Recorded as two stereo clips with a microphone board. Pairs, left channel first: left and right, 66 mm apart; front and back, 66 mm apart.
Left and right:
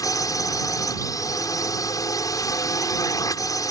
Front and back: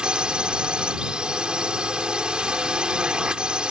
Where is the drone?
105° left.